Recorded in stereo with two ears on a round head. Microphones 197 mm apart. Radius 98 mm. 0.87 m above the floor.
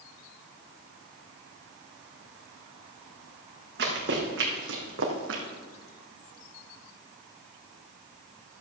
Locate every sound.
3.8 s running footsteps: 50° right (ahead or behind), 3.5 m; by 5.4 s 65° right (ahead or behind), 2.5 m